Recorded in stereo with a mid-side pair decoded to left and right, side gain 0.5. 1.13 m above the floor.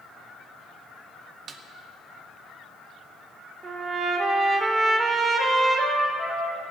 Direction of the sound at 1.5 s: 55° right.